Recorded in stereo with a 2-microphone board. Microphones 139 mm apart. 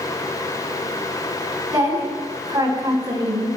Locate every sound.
1.7 s a woman speaking: 25° right (ahead or behind), 2.5 m